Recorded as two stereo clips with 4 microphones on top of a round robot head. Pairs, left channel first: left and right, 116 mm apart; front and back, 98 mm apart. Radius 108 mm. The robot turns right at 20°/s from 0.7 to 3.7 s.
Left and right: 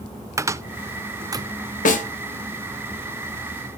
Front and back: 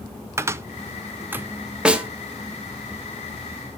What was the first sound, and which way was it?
A cupboard door, 135° right.